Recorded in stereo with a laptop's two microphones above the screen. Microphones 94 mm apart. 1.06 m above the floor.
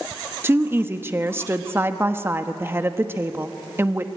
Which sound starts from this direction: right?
A woman speaking, at 0.4 s.